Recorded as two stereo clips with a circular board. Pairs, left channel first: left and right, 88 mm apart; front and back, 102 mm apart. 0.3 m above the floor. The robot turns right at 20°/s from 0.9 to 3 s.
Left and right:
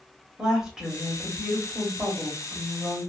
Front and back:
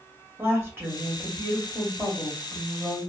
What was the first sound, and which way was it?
A woman speaking, 165° right.